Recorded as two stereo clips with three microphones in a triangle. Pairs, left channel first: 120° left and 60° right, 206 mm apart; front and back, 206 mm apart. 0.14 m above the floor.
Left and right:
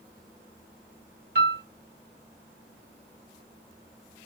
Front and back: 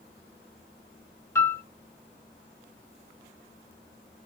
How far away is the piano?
About 0.9 m.